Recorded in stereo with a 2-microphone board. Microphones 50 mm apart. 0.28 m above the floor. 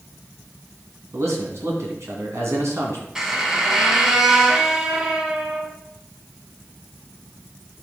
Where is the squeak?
10° right (ahead or behind), 1.4 m.